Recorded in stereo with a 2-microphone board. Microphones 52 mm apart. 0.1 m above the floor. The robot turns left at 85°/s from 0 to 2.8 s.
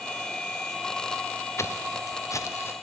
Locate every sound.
1.6 s footsteps: 60° left (ahead or behind), 0.5 m; by 2.7 s 50° left (ahead or behind), 1.0 m